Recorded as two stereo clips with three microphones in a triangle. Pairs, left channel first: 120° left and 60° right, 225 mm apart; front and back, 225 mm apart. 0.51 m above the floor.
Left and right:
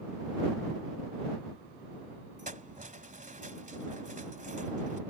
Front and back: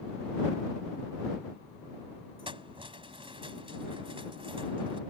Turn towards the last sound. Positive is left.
turn(degrees=-115)